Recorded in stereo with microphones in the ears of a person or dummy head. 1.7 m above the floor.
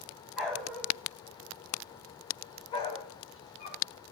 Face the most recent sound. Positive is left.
turn(degrees=50)  # may be behind; listen again after turning